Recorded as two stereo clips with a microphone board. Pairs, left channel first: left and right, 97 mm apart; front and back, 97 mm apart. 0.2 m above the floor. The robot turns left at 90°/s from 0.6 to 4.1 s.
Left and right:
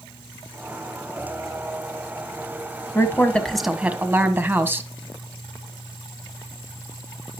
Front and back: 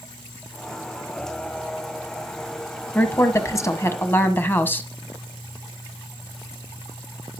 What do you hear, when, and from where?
3.0 s a woman speaking: 55° left, 1.4 m; by 4.9 s 45° right, 1.4 m